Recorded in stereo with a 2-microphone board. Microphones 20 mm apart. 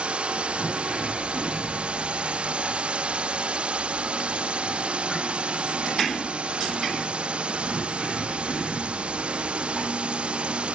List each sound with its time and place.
0.0 s a drone: 60° right (ahead or behind)